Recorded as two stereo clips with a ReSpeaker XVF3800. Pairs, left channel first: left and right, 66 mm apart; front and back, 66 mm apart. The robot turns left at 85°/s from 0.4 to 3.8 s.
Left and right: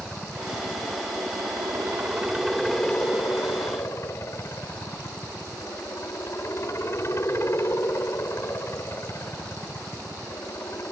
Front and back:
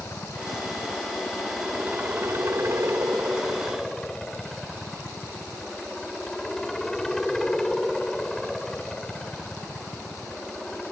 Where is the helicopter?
10° left; by 10.9 s 80° left.